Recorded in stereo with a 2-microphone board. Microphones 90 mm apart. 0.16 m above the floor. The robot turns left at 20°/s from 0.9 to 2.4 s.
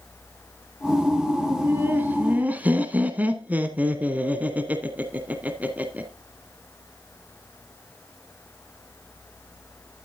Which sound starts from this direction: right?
Laughter, at 1.5 s.